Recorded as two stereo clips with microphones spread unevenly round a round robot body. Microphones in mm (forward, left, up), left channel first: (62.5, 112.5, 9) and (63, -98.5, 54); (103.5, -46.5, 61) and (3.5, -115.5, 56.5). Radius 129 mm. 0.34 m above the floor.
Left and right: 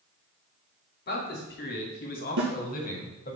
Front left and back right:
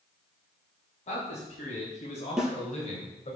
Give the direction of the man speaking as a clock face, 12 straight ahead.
10 o'clock.